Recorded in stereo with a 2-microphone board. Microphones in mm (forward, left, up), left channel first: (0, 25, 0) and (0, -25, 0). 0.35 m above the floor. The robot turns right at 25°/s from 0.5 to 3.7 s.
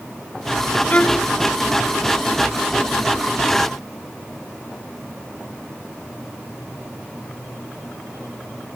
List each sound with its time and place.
0.9 s a violin: 25° left (ahead or behind); by 1.3 s 15° left (ahead or behind)